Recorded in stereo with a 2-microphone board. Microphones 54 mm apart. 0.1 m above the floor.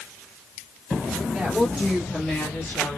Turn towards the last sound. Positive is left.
turn(degrees=45)  # may be behind; listen again after turning